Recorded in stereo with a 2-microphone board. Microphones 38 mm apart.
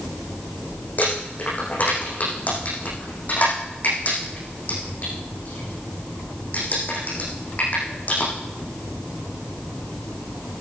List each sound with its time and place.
1.0 s crumpling: 45° left (ahead or behind), 7.5 m